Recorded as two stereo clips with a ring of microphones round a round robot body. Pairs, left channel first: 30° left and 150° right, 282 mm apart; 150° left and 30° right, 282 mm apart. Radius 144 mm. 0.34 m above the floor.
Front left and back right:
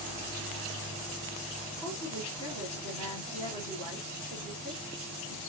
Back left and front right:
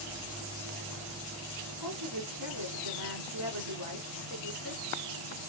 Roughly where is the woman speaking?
Ahead right.